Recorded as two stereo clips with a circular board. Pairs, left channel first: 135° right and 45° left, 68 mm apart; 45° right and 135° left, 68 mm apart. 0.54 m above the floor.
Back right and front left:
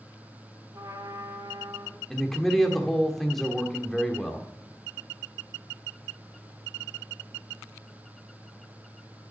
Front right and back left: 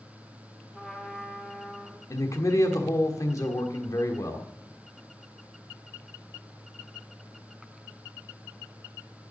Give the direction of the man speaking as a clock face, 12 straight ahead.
2 o'clock.